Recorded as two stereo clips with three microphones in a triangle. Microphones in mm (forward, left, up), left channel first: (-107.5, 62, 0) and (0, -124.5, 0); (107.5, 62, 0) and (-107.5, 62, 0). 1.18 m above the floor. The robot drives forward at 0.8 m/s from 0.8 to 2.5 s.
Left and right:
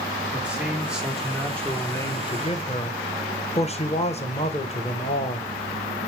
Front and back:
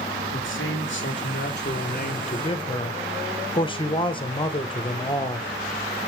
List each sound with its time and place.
0.3 s a man speaking: 25° left, 1.9 m; by 5.5 s 65° left, 1.0 m